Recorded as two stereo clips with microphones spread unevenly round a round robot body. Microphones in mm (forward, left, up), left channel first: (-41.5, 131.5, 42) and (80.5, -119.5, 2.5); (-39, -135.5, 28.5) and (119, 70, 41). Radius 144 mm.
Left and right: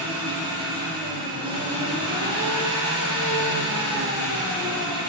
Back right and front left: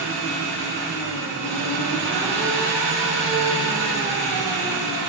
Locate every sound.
0.0 s an engine running: 10° left, 6.5 m